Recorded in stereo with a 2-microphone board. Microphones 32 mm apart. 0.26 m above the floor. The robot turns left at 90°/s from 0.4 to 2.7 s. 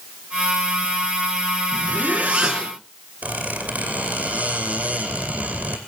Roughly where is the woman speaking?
No woman speaking in this recording.